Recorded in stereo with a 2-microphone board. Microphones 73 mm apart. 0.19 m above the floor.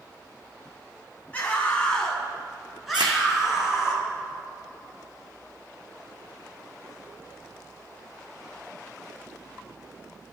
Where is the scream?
25° left (ahead or behind), 1.3 m; by 3.9 s 5° right (ahead or behind), 3.5 m.